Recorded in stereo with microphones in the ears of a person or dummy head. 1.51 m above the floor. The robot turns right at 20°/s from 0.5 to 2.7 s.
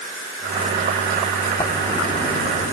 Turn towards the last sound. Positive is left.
turn(degrees=45)  # may be behind; listen again after turning